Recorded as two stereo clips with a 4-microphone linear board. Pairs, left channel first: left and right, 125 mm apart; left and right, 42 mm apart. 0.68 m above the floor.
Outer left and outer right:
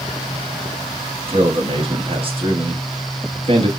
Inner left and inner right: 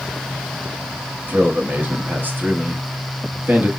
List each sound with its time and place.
1.3 s a man speaking: 45° right (ahead or behind), 1.0 m